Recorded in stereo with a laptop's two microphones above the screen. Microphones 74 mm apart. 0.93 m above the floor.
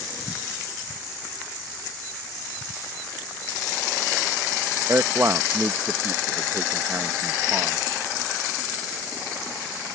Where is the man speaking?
40° right (ahead or behind).